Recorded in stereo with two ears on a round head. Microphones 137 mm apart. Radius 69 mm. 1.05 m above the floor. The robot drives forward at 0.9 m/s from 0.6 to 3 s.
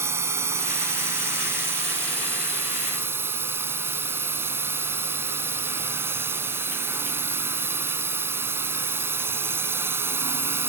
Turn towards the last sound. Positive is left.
turn(degrees=-15)  # may be behind; listen again after turning